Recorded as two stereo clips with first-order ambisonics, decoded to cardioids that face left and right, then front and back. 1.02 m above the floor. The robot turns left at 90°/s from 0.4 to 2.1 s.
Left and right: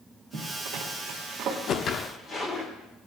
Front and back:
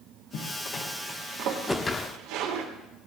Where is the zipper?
45° right, 2.5 m; by 2.7 s 160° left, 2.5 m.